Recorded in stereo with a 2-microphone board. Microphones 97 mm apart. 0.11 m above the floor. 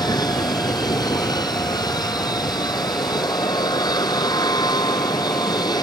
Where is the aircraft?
45° left (ahead or behind).